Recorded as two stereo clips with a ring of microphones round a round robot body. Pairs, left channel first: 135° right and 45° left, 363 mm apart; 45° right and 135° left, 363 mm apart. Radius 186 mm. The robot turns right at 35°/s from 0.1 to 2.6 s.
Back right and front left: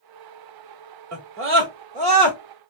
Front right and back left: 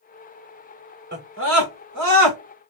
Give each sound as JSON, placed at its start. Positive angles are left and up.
{"t": 1.1, "sound": "a scream", "azimuth_deg": 80, "distance_m": 1.8}